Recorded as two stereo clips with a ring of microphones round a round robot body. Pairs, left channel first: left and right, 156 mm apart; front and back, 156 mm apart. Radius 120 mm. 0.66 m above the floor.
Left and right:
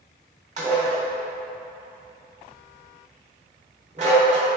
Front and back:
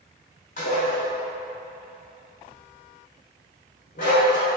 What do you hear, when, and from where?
0.6 s dishes clattering: 50° right, 1.5 m